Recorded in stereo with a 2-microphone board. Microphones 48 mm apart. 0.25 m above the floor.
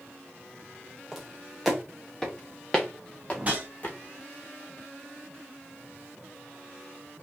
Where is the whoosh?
35° right (ahead or behind), 1.7 m.